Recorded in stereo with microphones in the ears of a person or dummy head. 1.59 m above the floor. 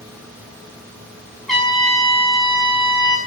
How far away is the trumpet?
About 2.5 m.